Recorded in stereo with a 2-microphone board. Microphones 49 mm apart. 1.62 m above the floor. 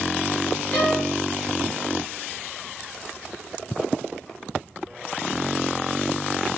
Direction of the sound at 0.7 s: 25° left (ahead or behind).